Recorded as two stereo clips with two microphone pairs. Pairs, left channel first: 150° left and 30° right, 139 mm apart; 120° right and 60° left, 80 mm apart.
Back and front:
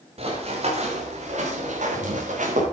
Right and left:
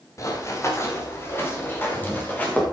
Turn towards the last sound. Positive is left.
turn(degrees=-50)